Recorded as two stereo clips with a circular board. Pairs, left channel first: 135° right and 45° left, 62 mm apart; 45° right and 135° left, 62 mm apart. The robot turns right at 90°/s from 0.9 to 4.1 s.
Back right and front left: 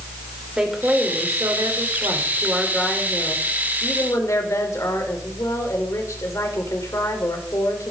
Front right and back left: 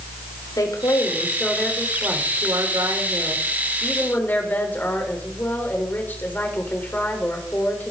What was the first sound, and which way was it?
A woman speaking, 30° right.